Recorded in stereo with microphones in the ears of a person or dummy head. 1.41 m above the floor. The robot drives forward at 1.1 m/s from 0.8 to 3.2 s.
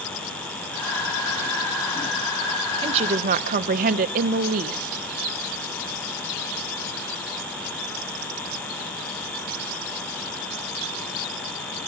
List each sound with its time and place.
2.8 s a woman speaking: 30° right (ahead or behind), 1.1 m; by 5.0 s 45° right (ahead or behind), 0.8 m